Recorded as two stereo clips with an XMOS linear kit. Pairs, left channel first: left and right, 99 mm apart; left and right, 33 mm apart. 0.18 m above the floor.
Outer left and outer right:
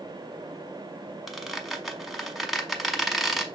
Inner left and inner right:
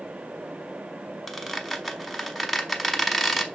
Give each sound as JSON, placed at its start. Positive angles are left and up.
{"t": 1.3, "sound": "a squeak", "side_deg": 0, "distance_m": 0.7}